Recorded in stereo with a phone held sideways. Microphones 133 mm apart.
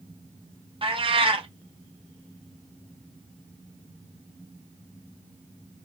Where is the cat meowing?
40° right (ahead or behind), 0.7 m.